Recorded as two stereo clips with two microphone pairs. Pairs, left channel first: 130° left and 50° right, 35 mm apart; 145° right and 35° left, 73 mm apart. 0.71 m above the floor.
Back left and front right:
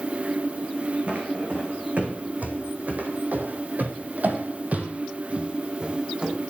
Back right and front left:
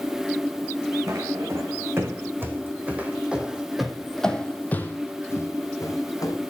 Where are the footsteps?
10° right, 2.5 m; by 6.4 s 120° right, 1.9 m.